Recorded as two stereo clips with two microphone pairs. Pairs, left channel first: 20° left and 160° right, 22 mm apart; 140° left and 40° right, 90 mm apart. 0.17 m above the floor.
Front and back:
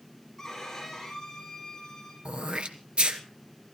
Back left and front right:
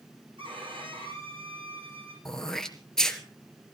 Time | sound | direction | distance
0.4 | a violin | 55° right | 9 m
2.2 | throat clearing | 135° right | 1.7 m